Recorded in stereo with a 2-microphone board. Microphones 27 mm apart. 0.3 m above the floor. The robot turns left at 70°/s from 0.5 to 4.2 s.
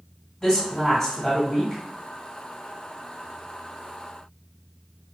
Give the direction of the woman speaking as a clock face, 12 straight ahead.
10 o'clock.